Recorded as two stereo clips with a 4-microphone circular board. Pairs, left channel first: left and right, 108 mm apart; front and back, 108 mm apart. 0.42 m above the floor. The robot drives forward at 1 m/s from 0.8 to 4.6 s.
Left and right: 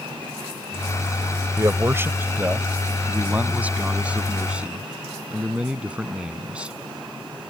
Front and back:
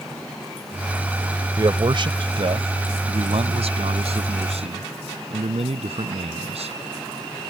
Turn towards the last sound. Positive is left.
turn(degrees=-170)